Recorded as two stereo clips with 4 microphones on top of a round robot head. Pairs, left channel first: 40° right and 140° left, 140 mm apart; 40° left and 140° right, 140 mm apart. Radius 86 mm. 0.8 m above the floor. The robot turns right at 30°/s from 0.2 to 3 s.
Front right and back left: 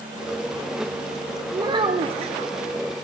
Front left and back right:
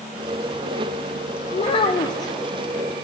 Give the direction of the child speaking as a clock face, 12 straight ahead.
9 o'clock.